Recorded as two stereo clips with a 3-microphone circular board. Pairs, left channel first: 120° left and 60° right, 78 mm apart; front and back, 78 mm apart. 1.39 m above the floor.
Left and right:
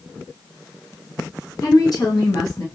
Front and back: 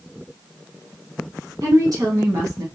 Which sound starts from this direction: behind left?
A woman speaking, at 1.6 s.